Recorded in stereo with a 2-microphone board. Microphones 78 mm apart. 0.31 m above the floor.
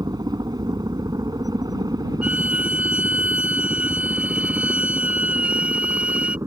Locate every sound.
0.0 s a helicopter: 60° right (ahead or behind); by 6.5 s 45° right (ahead or behind)
2.2 s a violin: 15° right (ahead or behind)